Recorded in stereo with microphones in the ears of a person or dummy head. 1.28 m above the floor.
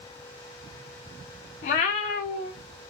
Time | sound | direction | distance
1.6 | a cat meowing | 45° left (ahead or behind) | 0.6 m